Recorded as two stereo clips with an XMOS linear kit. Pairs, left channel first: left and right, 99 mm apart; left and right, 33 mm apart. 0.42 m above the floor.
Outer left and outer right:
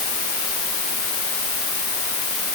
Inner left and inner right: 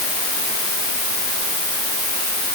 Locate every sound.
Only background noise.